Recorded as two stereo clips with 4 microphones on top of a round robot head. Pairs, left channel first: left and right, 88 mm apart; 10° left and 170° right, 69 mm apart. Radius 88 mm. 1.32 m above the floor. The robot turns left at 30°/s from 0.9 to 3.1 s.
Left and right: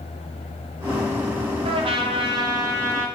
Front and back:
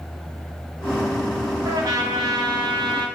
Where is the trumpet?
120° right, 0.9 m; by 3.1 s 160° right, 0.9 m.